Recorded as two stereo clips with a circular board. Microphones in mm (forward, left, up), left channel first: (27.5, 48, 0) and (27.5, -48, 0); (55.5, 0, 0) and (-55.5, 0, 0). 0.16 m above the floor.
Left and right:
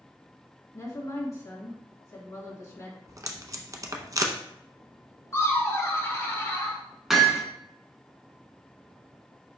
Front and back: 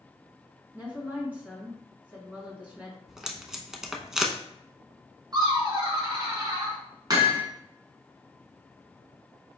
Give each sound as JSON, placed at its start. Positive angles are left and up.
{"t": 0.7, "sound": "a woman speaking", "azimuth_deg": 115, "distance_m": 1.9}
{"t": 3.1, "sound": "tape being pulled", "azimuth_deg": -95, "distance_m": 0.7}
{"t": 5.3, "sound": "laughter", "azimuth_deg": 140, "distance_m": 1.6}
{"t": 7.1, "sound": "hammering", "azimuth_deg": -170, "distance_m": 1.1}